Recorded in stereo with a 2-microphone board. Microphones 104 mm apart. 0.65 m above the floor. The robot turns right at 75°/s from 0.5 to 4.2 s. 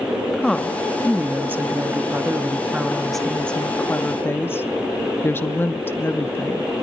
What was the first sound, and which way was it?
A woman speaking, 5° left (ahead or behind).